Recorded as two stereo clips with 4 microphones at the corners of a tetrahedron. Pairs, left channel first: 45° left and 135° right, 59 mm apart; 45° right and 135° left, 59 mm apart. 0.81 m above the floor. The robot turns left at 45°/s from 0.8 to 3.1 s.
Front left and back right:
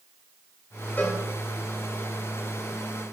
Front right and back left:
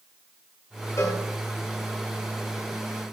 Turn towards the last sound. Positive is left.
turn(degrees=-110)